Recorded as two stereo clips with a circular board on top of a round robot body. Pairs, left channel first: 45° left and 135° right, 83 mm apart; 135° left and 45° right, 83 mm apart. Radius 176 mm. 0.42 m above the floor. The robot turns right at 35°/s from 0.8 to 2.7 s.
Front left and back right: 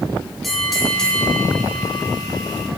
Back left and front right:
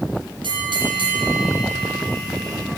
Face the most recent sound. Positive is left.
turn(degrees=20)